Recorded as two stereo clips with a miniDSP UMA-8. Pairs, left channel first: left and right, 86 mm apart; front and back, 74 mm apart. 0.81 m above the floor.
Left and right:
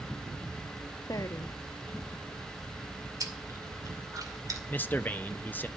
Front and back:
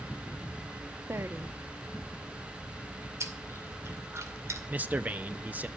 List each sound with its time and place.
1.1 s a woman speaking: 130° left, 0.8 m
3.2 s chewing: 135° right, 2 m
4.7 s a man speaking: 135° left, 0.7 m